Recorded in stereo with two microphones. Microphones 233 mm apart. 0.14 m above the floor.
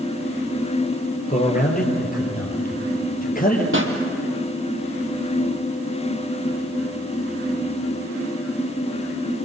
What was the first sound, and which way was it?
A man speaking, 35° left (ahead or behind).